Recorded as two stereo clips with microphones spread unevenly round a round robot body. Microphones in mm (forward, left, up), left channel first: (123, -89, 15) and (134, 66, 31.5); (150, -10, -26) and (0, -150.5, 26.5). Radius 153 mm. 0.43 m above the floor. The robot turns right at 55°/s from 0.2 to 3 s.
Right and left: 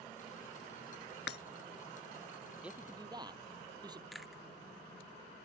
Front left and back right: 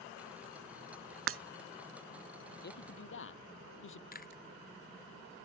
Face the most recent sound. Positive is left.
turn(degrees=-5)